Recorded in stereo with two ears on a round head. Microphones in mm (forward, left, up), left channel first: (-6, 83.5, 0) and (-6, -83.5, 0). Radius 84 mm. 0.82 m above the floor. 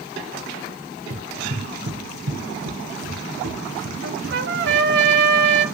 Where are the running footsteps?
55° right (ahead or behind), 1.3 m; by 4.8 s 80° right, 4.5 m.